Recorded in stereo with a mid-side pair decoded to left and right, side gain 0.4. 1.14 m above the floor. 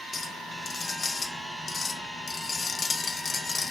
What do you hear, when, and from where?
0.1 s a clink: 45° left, 0.7 m